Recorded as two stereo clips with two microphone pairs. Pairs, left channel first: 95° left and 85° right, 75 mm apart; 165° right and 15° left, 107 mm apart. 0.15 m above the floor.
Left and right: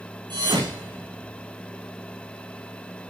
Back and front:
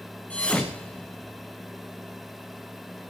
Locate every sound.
0.3 s a thud: 85° right, 2 m